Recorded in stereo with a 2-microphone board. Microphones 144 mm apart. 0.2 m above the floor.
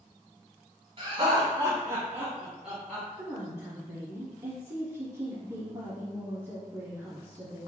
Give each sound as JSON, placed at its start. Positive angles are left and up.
{"t": 1.0, "sound": "laughter", "side_deg": -40, "distance_m": 1.4}
{"t": 3.2, "sound": "a woman speaking", "side_deg": -20, "distance_m": 1.2}